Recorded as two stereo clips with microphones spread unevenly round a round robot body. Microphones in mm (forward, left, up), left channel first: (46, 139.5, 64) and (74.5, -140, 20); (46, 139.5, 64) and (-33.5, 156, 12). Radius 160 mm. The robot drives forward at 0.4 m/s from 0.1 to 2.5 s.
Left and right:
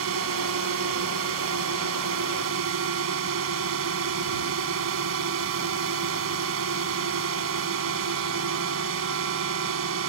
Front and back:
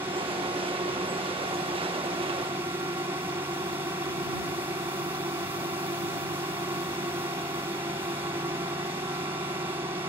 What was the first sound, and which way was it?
A drone, 125° right.